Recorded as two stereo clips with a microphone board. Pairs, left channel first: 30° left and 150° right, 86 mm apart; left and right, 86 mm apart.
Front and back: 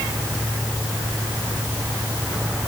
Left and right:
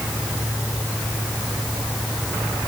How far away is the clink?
No clink in this recording.